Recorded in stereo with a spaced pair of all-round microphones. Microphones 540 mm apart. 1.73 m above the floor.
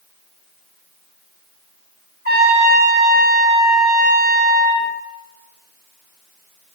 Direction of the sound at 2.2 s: 15° right (ahead or behind).